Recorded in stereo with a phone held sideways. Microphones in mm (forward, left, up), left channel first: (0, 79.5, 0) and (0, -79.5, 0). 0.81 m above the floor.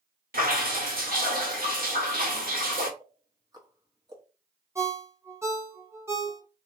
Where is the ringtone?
15° right (ahead or behind), 0.9 m.